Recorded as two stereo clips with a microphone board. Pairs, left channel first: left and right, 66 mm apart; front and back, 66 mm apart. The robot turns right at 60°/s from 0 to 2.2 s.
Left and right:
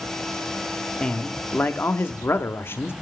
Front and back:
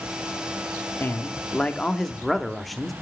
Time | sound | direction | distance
1.0 | a man speaking | 15° left | 0.7 m